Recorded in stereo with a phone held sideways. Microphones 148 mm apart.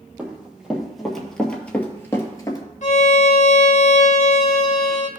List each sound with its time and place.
0.2 s running footsteps: 10° right (ahead or behind), 2.5 m; by 2.6 s 25° left (ahead or behind), 1.6 m
2.8 s a violin: 55° left (ahead or behind), 1.4 m